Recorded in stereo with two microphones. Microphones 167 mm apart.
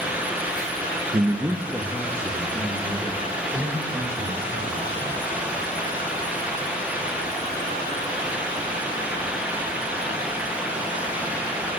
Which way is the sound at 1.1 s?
35° right (ahead or behind).